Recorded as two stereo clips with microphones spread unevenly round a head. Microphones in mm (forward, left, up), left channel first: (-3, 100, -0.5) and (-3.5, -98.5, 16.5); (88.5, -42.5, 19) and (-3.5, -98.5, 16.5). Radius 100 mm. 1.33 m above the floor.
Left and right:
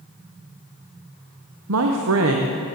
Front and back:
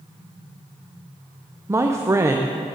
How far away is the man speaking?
About 1.0 m.